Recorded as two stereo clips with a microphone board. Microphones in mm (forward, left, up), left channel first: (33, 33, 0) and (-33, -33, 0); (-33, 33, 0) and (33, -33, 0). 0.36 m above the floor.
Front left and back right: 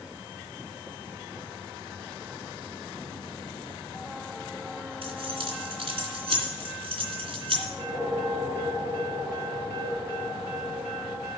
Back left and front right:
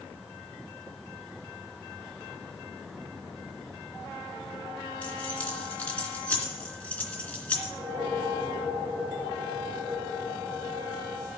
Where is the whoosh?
175° left, 2.5 m.